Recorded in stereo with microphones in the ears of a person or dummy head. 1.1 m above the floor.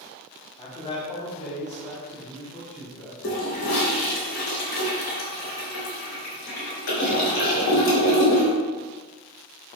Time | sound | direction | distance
0.6 | a man speaking | 30° left (ahead or behind) | 2.0 m
3.2 | a toilet flushing | 80° left | 3 m